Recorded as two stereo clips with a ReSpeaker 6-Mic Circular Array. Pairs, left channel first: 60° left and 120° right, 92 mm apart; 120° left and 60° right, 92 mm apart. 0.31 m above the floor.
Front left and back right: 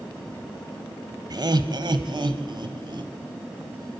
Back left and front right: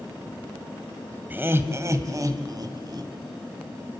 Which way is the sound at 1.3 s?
120° right.